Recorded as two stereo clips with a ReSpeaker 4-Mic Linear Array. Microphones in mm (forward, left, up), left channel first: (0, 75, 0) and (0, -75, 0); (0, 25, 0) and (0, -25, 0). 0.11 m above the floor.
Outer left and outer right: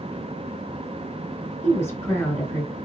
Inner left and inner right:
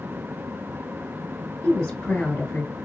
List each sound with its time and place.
1.6 s a woman speaking: 15° left (ahead or behind), 1.5 m